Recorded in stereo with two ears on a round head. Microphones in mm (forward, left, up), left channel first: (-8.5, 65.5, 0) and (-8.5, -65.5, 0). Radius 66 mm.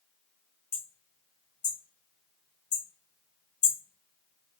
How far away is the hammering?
About 1.4 m.